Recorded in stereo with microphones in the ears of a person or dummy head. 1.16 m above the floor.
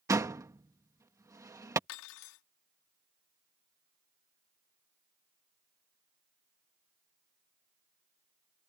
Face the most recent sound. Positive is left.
turn(degrees=75)  # may be behind; listen again after turning